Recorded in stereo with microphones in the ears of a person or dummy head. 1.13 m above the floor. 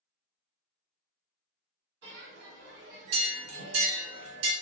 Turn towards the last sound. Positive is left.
turn(degrees=-80)